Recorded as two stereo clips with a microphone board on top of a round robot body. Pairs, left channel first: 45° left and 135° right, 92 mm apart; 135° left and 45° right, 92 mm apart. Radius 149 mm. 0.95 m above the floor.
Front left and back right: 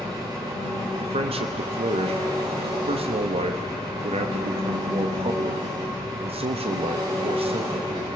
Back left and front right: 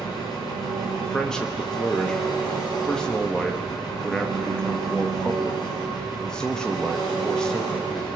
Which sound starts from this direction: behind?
An engine running, at 0.0 s.